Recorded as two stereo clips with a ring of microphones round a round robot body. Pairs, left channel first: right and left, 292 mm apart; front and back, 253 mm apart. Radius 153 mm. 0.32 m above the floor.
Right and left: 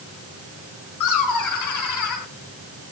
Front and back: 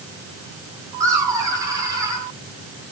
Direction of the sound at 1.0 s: 100° right.